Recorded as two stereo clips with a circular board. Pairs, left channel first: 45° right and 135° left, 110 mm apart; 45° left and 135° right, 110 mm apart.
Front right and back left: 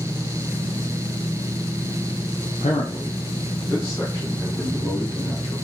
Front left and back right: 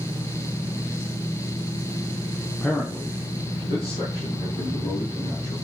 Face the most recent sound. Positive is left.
turn(degrees=40)